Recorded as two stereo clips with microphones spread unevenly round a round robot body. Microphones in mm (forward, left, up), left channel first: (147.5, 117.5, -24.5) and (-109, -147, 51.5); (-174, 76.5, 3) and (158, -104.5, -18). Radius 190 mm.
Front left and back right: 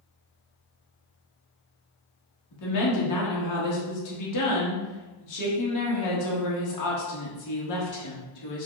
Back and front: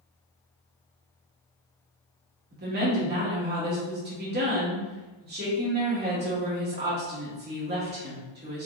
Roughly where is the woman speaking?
Ahead left.